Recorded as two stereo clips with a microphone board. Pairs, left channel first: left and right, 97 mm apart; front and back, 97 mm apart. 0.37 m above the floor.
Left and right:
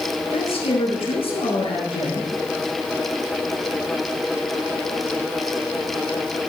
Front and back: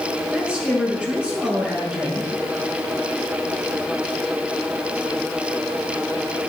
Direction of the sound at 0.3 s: 100° left.